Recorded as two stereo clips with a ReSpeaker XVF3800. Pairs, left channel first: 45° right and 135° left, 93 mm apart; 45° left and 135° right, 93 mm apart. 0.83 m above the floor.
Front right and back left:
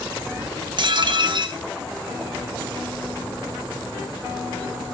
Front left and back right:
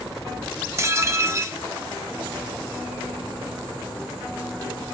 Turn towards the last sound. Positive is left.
turn(degrees=165)